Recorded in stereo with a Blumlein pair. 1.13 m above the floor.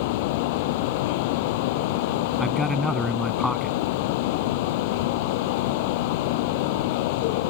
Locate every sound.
0.0 s a fan: 50° left
2.4 s a man speaking: 5° left